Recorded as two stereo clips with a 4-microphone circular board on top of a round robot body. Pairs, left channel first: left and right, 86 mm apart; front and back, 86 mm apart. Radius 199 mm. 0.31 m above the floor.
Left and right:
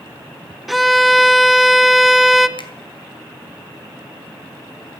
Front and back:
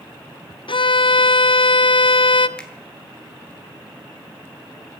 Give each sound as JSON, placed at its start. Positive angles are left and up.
{"t": 0.7, "sound": "a violin", "azimuth_deg": 0, "distance_m": 0.7}
{"t": 2.6, "sound": "a finger snap", "azimuth_deg": 80, "distance_m": 2.0}